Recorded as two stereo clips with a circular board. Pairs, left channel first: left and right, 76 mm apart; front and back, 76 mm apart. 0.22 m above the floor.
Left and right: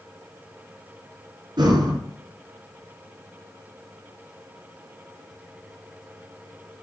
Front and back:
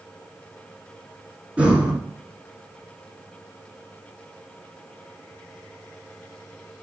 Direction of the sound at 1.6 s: 105° right.